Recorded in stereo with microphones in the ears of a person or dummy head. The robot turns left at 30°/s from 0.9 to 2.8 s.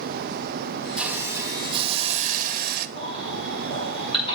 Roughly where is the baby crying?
Left.